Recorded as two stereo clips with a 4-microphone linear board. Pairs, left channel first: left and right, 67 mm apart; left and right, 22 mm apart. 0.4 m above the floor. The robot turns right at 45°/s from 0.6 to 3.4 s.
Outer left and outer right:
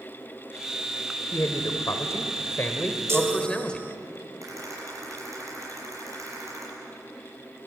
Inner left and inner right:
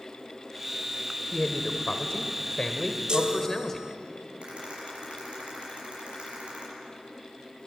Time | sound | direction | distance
1.3 | a man speaking | 70° left | 1.4 m
3.1 | a chime | 40° right (ahead or behind) | 0.8 m
4.4 | a rattle | 50° right (ahead or behind) | 6.5 m